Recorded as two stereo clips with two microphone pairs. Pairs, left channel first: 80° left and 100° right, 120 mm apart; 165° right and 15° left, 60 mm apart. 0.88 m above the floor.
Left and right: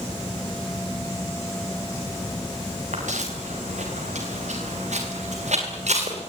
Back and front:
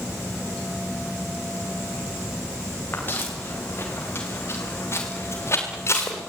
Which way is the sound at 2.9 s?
110° right.